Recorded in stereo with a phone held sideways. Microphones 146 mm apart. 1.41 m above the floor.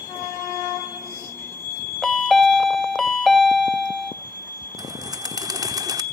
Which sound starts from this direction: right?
A bird, at 4.8 s.